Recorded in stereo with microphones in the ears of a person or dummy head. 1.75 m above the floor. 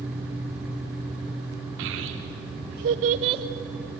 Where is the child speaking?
65° right (ahead or behind), 1.3 m; by 3.4 s 25° right (ahead or behind), 0.8 m.